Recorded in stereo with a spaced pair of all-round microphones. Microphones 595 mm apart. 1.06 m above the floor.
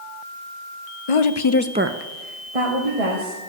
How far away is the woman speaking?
About 0.9 m.